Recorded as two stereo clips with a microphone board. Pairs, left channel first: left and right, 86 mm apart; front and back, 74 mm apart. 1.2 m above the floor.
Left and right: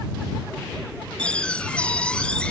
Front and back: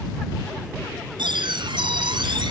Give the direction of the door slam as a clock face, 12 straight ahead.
6 o'clock.